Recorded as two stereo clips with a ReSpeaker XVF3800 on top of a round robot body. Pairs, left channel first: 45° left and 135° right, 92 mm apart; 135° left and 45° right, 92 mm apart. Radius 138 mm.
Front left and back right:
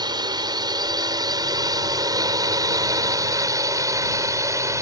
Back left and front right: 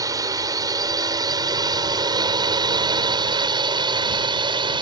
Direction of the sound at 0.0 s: 95° right.